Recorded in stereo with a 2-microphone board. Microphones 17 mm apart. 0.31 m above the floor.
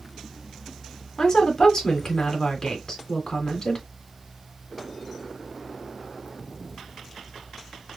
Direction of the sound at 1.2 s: 30° left (ahead or behind).